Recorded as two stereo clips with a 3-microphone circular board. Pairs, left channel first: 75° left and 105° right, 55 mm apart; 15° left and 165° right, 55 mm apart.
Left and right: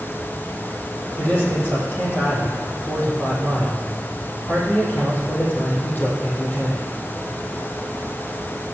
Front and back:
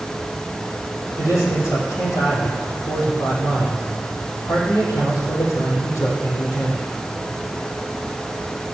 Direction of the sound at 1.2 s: 20° left.